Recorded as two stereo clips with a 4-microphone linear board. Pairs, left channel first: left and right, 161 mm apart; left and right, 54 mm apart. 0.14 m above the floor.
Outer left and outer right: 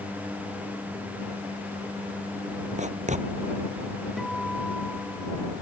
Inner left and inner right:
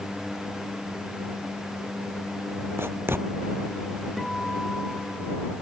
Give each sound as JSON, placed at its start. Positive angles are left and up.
{"t": 2.8, "sound": "writing", "side_deg": -50}
{"t": 4.2, "sound": "a guitar", "side_deg": 0}